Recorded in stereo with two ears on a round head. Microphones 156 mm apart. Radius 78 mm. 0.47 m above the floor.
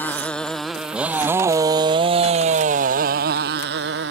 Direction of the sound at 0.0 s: 10° left (ahead or behind).